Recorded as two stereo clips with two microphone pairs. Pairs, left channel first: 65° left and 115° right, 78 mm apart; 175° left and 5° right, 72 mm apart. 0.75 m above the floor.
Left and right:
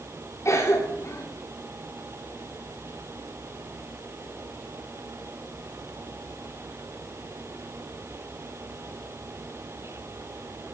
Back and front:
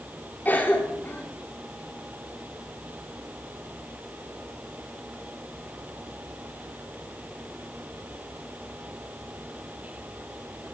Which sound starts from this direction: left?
A cough, at 0.5 s.